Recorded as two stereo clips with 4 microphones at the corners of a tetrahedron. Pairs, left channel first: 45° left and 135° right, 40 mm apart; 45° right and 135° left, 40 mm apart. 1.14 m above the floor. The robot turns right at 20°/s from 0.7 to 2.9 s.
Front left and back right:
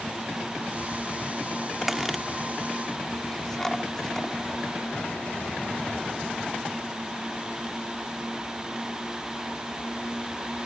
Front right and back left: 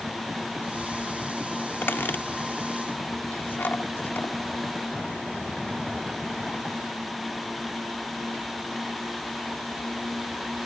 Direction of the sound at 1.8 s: 50° right.